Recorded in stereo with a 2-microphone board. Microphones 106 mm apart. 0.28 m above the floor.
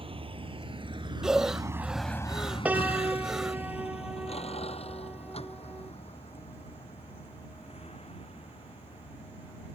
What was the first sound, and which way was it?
A vehicle, 65° right (ahead or behind).